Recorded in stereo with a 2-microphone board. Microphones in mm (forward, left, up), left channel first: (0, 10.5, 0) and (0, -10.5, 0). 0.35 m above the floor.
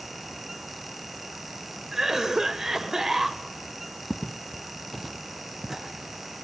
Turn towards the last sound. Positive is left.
turn(degrees=-35)  # may be behind; listen again after turning